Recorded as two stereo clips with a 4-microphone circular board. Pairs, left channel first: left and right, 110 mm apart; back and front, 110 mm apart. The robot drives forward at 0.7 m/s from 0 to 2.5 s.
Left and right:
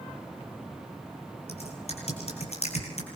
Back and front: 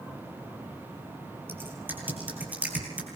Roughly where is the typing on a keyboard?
Left.